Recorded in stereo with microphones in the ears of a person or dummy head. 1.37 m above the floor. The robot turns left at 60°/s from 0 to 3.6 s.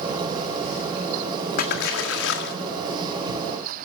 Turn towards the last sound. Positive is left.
turn(degrees=5)